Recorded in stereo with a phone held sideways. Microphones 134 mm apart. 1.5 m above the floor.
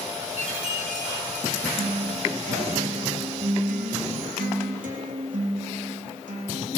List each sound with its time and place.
0.4 s a chime: 80° right, 4.5 m
1.8 s a guitar: 80° right, 3.5 m